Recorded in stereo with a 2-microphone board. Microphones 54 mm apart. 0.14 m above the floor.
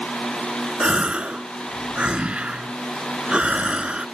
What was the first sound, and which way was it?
A gasp, 25° right (ahead or behind).